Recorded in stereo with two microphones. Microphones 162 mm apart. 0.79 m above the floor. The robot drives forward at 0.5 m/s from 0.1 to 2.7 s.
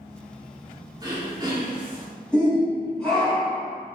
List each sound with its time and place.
1.0 s throat clearing: 25° right (ahead or behind), 2 m; by 2.1 s 30° right (ahead or behind), 1.8 m
2.3 s a shout: 5° left (ahead or behind), 3 m